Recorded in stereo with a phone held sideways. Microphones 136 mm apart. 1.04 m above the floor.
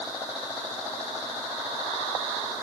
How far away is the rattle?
No rattle in this recording.